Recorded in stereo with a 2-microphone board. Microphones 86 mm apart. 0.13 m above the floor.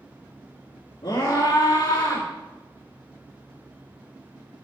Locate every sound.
1.0 s a scream: 50° left (ahead or behind), 3 m; by 2.3 s 60° left (ahead or behind), 3.5 m